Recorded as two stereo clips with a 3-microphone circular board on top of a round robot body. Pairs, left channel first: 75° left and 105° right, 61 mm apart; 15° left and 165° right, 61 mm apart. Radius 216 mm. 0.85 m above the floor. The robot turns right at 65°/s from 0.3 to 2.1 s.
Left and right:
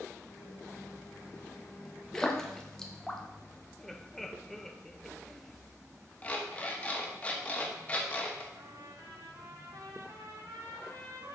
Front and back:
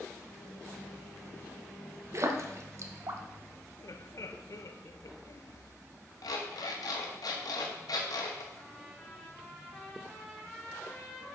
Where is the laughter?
10° right, 0.8 m.